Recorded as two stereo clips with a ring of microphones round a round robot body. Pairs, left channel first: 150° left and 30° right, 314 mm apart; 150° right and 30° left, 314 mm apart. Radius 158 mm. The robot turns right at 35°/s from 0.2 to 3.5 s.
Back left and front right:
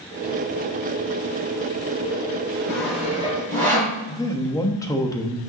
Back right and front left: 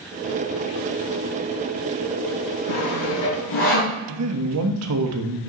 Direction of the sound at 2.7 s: 125° right.